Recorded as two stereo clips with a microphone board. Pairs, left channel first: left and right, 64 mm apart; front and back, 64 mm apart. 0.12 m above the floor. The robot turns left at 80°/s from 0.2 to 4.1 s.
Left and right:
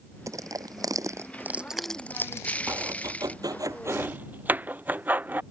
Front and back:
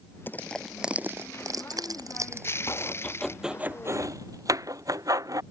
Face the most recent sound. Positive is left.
turn(degrees=-150)